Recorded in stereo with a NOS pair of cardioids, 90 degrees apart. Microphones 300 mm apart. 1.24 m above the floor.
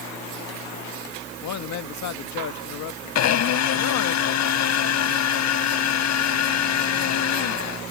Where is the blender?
65° left.